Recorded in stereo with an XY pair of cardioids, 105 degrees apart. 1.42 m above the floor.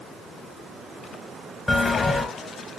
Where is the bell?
20° left, 1.2 m.